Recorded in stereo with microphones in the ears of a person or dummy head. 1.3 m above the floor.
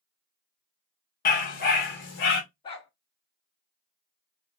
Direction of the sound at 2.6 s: 35° left (ahead or behind).